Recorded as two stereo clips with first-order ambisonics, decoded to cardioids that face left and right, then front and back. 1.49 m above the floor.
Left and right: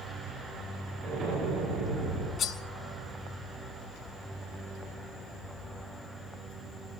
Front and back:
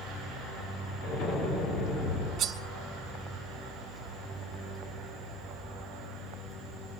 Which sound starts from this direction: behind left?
Cutlery clinking, at 2.4 s.